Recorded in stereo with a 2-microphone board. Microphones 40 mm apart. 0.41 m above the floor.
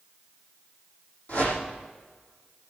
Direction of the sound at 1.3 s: 55° left (ahead or behind).